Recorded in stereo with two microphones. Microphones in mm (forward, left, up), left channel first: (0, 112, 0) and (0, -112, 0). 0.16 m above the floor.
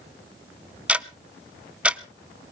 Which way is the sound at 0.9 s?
5° right (ahead or behind).